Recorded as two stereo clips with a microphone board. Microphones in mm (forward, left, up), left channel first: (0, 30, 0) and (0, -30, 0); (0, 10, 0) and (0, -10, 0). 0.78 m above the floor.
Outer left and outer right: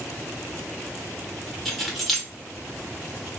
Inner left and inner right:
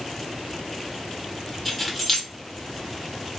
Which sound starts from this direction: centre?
Keys jangling, at 1.6 s.